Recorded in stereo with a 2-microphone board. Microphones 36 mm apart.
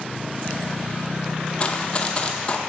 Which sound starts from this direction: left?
Running footsteps, at 1.6 s.